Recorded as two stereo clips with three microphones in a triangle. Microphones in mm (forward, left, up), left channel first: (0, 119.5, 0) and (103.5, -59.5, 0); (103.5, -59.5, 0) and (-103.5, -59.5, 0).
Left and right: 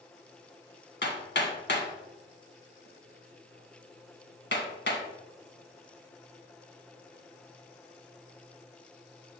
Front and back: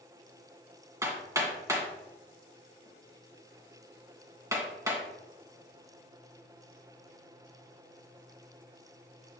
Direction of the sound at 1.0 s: 110° left.